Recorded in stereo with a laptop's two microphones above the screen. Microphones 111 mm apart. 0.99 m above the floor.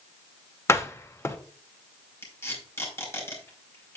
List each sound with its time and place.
0.7 s a door slam: 25° left (ahead or behind), 0.9 m
2.2 s tape being pulled: 25° left (ahead or behind), 4 m